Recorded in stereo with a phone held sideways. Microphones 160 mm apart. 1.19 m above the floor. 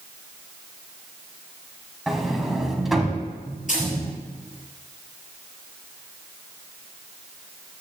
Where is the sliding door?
Centre (ahead or behind), 1.6 m.